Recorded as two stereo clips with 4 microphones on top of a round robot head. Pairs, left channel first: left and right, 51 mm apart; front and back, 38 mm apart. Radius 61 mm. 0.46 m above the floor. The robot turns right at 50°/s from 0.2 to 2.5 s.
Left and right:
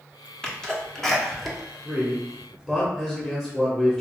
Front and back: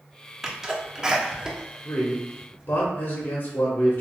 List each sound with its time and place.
0.4 s a sneeze: 120° left, 1.1 m; by 2.7 s 135° right, 1.1 m
1.9 s a man speaking: 15° right, 1.0 m; by 4.0 s 20° left, 1.0 m